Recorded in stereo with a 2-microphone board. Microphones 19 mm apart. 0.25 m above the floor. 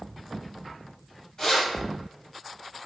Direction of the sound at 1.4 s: 35° left (ahead or behind).